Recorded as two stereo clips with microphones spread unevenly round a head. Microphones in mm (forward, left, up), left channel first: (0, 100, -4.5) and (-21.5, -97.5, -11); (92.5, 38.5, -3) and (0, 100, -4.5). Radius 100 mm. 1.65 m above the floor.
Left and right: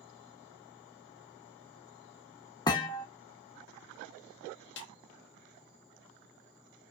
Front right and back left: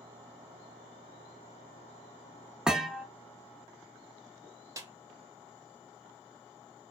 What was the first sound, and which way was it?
A thud, 70° left.